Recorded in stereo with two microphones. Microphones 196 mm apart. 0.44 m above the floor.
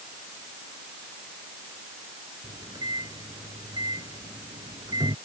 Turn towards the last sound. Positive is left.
turn(degrees=-20)  # may be behind; listen again after turning